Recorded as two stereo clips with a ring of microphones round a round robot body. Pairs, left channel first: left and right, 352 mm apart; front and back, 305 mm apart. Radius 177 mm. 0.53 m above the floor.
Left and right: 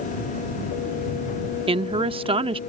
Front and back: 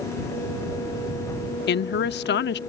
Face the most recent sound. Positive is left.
turn(degrees=-25)